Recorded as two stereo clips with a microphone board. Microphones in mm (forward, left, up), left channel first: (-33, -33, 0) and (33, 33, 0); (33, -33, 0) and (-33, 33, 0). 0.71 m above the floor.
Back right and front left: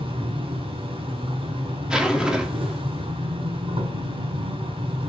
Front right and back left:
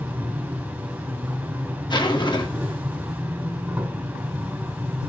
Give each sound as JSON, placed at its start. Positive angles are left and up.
{"t": 0.0, "sound": "an insect", "azimuth_deg": 60, "distance_m": 4.0}
{"t": 1.9, "sound": "a zipper", "azimuth_deg": -35, "distance_m": 1.9}